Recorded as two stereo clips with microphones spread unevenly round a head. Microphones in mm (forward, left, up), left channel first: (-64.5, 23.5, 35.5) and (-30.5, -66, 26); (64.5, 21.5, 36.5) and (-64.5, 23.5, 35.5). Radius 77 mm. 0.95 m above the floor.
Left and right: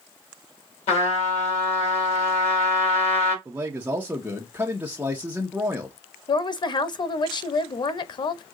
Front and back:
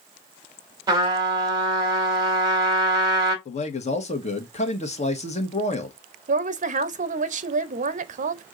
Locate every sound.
0.9 s a trumpet: 115° left, 3.5 m
3.5 s a man speaking: 5° right, 1.3 m
6.3 s a woman speaking: 155° left, 0.9 m